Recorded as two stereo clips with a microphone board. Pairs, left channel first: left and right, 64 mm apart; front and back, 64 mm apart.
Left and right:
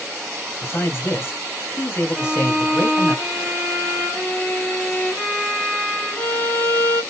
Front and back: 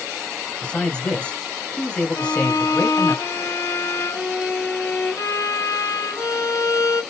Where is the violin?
25° left, 2.5 m.